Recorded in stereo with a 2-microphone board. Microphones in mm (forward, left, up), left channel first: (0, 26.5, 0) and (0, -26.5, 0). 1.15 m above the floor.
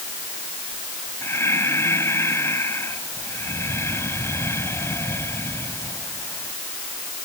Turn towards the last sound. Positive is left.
turn(degrees=60)  # may be behind; listen again after turning